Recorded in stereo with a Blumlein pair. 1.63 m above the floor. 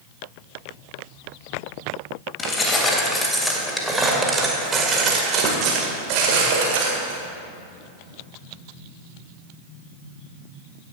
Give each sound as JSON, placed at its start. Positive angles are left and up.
{"t": 2.4, "sound": "keys jangling", "azimuth_deg": 20, "distance_m": 1.9}